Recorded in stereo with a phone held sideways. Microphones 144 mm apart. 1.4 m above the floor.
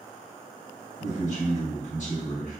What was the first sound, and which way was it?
A man speaking, 55° left (ahead or behind).